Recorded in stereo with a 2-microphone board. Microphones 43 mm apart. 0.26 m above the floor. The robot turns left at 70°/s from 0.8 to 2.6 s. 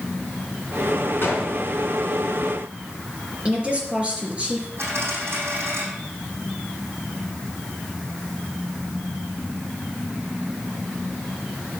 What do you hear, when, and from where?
1.2 s a gunshot: 55° left (ahead or behind), 3.5 m; by 1.5 s 65° left (ahead or behind), 3.5 m
3.5 s a woman speaking: 25° right (ahead or behind), 4 m
4.8 s a dropped coin: 65° right (ahead or behind), 6 m